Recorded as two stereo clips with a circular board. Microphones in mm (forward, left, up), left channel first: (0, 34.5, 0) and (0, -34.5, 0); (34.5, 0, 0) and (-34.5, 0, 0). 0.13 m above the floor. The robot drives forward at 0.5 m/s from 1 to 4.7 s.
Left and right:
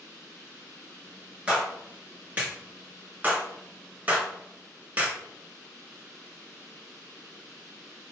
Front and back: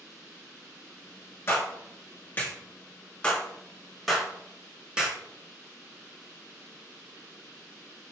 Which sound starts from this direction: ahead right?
A clap, at 1.5 s.